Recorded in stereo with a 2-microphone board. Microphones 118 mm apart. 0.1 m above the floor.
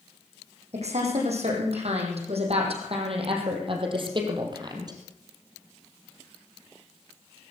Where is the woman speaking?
70° right (ahead or behind), 5.5 m; by 5.0 s 35° right (ahead or behind), 3 m.